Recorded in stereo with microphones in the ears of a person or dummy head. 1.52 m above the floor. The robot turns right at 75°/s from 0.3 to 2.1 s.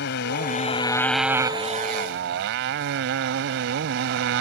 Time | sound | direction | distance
0.0 | a motorcycle | 115° left | ?